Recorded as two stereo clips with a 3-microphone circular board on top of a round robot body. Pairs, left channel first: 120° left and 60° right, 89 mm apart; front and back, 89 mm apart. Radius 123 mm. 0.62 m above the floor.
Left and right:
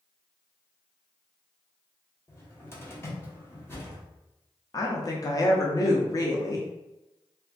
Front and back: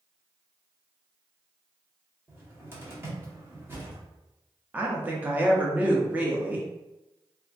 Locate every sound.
2.3 s a cupboard door: 150° left, 1.3 m
4.7 s a woman speaking: 120° left, 0.6 m